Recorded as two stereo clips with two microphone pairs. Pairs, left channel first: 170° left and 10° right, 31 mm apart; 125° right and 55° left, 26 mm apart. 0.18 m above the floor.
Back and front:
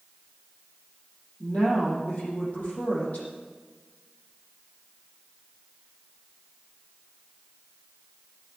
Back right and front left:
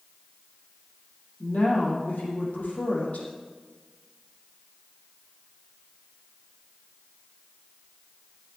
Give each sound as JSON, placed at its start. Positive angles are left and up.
{"t": 1.4, "sound": "a woman speaking", "azimuth_deg": -155, "distance_m": 5.5}